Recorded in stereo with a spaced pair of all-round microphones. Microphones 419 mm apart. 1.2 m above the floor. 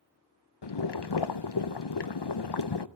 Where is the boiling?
70° left (ahead or behind), 0.6 m.